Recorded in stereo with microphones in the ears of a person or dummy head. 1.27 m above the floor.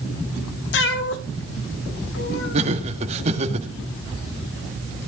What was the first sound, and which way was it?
A cat meowing, 55° left (ahead or behind).